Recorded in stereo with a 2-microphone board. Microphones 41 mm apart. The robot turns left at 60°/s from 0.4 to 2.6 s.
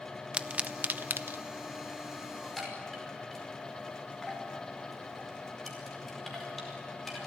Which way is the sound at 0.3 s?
30° right (ahead or behind).